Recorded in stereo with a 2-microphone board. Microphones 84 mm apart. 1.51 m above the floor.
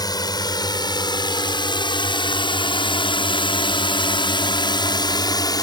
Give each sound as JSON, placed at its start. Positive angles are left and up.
{"t": 0.0, "sound": "a drone", "side_deg": 50}